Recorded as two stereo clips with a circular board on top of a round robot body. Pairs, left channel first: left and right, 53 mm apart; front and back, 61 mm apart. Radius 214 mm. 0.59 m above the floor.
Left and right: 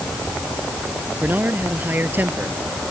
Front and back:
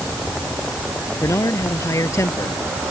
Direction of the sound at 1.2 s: 35° right.